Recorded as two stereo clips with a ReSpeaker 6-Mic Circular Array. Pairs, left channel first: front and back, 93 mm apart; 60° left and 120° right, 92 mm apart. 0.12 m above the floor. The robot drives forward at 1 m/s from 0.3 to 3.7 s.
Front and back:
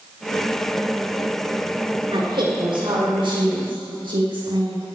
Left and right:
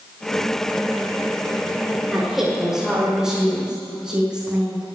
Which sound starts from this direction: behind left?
A woman speaking, at 2.1 s.